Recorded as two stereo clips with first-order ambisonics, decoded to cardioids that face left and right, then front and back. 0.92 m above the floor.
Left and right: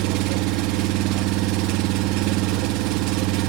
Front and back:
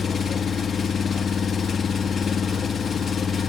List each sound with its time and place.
0.0 s an engine running: 70° right, 0.9 m